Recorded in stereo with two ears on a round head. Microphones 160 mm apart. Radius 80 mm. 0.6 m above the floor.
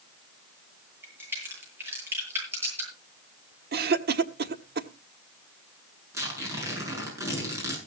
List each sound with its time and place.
1.0 s a crack: 15° right (ahead or behind), 8.5 m
3.7 s a cough: 55° right (ahead or behind), 1.3 m
6.1 s tearing paper: 15° right (ahead or behind), 7 m